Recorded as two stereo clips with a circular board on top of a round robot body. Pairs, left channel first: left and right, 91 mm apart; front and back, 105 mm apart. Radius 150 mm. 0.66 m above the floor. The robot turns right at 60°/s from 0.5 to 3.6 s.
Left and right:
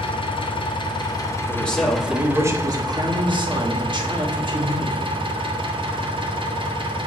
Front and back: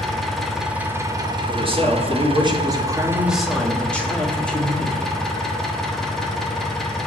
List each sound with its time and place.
0.0 s an engine running: 90° left, 1.3 m; by 7.1 s 85° right, 1.3 m
1.5 s a man speaking: 155° left, 1.7 m; by 5.1 s 75° right, 1.7 m